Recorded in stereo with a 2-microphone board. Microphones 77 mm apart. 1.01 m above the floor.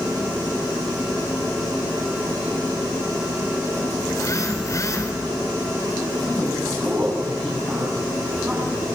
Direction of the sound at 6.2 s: 15° right (ahead or behind).